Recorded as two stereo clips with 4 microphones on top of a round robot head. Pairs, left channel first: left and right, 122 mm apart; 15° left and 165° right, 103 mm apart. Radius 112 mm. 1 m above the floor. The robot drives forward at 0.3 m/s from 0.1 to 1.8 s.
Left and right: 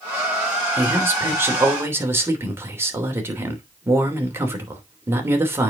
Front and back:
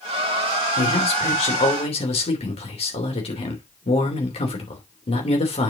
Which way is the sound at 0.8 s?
15° right.